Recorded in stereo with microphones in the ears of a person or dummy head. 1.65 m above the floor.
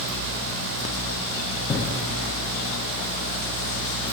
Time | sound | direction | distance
1.7 | breathing | 20° left (ahead or behind) | 0.7 m